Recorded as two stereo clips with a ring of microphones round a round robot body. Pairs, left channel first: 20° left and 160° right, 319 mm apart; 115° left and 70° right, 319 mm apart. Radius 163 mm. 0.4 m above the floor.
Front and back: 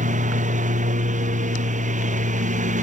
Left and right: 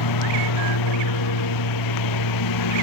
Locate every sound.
0.0 s a lawn mower: 135° left